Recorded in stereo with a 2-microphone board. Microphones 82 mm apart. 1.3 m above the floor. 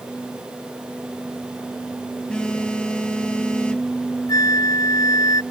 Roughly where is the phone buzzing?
Centre.